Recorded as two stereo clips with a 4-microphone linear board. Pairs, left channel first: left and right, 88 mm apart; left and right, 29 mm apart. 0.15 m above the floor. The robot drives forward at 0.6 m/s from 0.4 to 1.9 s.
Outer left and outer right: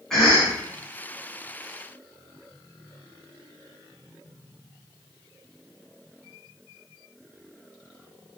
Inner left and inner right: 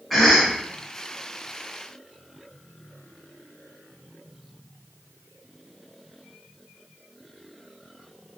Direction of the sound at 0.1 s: 5° left (ahead or behind).